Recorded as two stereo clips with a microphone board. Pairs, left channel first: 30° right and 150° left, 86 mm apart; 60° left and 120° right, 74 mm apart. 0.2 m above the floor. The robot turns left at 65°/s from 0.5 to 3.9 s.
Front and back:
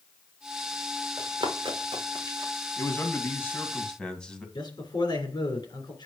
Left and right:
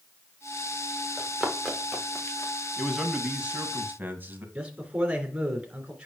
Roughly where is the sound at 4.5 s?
Ahead right.